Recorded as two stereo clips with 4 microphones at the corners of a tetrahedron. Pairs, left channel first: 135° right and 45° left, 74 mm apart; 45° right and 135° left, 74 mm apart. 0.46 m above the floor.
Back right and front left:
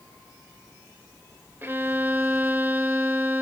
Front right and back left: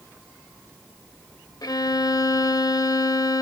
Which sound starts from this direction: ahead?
A violin, at 1.6 s.